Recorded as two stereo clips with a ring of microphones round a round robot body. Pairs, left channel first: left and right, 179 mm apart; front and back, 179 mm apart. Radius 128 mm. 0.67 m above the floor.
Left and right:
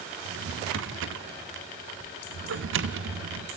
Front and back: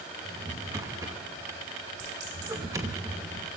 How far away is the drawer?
About 0.8 m.